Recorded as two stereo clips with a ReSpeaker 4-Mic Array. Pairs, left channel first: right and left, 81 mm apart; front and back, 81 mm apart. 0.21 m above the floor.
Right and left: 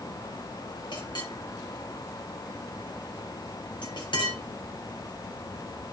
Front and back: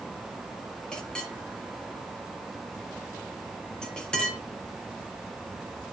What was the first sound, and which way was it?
A clink, 80° right.